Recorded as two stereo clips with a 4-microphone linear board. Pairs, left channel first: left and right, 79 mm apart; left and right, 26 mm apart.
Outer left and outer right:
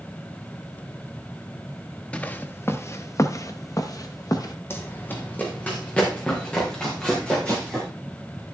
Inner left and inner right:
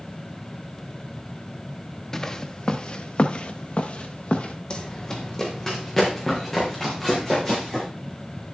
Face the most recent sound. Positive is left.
turn(degrees=15)  # may be behind; listen again after turning